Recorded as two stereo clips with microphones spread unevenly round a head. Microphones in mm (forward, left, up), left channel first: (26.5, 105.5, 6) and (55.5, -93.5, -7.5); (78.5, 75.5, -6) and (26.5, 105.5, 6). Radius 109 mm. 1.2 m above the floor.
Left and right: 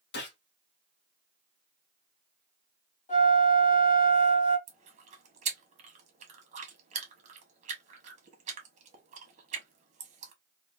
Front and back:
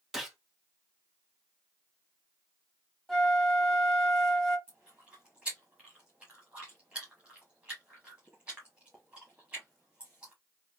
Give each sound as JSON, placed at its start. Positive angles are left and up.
{"t": 0.1, "sound": "a gunshot", "azimuth_deg": 65, "distance_m": 1.2}
{"t": 3.1, "sound": "a flute", "azimuth_deg": 60, "distance_m": 1.5}
{"t": 4.7, "sound": "chewing", "azimuth_deg": -125, "distance_m": 0.8}